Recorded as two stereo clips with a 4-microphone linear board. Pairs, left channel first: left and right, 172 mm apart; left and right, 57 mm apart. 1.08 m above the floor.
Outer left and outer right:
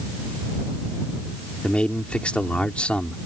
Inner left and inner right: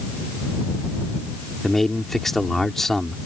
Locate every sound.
1.6 s a man speaking: 5° left (ahead or behind)